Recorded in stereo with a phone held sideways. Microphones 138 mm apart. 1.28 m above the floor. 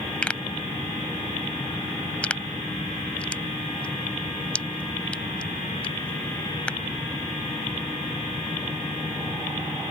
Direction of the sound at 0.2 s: 10° left (ahead or behind).